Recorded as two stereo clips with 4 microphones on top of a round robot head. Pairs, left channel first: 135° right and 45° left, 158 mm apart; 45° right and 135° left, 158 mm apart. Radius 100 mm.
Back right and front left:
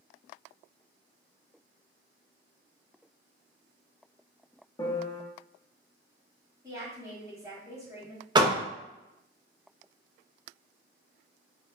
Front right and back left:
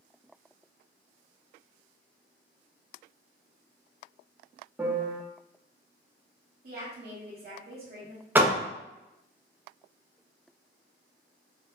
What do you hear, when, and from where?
4.8 s a piano: 160° right, 0.7 m
6.6 s a woman speaking: 115° left, 1.2 m
8.3 s a door slam: 70° left, 0.6 m